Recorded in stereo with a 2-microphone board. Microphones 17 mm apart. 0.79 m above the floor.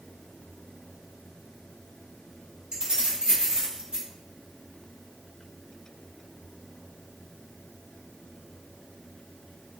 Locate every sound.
2.7 s keys jangling: 65° right (ahead or behind), 1.4 m